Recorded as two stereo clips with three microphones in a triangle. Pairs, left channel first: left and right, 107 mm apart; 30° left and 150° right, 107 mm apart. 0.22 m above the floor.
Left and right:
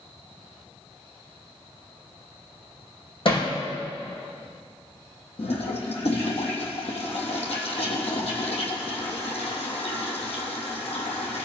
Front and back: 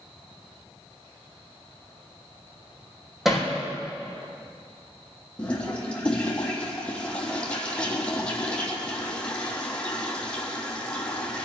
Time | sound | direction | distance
3.2 | hammering | 125° left | 5 m
5.4 | a toilet flushing | 110° left | 3 m